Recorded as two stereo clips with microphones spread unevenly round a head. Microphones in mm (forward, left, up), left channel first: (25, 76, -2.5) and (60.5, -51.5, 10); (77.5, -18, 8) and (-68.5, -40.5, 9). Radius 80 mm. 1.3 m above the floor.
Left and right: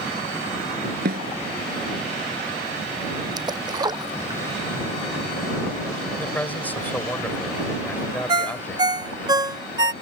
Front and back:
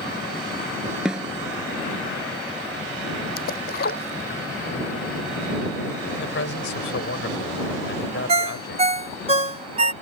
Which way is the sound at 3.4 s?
15° right.